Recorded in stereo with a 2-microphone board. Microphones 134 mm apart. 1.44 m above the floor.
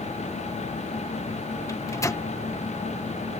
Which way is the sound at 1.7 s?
25° left (ahead or behind).